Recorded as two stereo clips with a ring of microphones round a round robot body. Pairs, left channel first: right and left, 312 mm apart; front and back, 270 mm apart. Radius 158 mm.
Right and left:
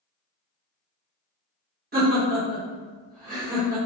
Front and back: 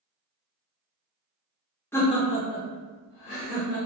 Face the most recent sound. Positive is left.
turn(degrees=25)